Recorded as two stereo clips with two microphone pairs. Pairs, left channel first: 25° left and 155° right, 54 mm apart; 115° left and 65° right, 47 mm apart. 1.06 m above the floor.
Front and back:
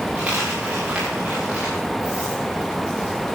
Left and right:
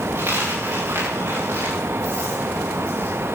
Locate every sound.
0.1 s a dropped coin: 85° right, 8.5 m